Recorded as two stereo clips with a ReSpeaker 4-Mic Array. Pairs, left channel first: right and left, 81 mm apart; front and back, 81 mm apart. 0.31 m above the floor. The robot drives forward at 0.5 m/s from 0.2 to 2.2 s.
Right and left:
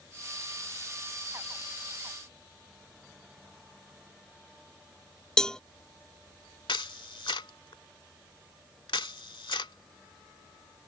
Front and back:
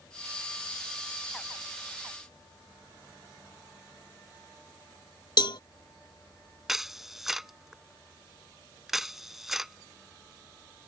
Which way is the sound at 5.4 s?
10° right.